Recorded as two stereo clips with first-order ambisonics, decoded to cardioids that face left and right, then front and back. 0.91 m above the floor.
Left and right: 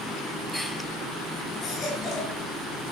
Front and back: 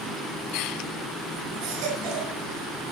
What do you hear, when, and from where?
1.6 s a baby crying: 160° left, 6 m